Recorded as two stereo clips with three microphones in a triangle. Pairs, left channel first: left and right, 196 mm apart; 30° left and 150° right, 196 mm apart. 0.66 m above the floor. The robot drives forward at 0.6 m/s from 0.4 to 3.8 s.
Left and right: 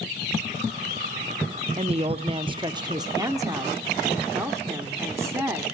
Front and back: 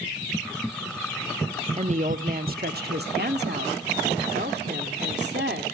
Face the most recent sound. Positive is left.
turn(degrees=-165)